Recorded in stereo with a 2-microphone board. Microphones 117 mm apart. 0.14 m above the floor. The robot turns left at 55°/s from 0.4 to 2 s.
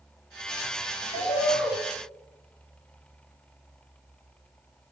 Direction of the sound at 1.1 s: 75° left.